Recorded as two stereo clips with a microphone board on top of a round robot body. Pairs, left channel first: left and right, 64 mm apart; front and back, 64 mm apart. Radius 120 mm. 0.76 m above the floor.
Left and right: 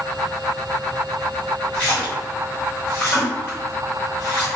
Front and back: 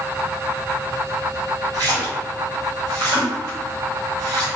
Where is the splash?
160° left, 1.5 m.